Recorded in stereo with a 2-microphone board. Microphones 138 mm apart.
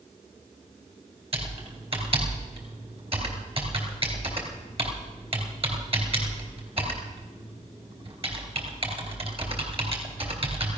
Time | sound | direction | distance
1.3 | typing on a keyboard | 45° right (ahead or behind) | 3.5 m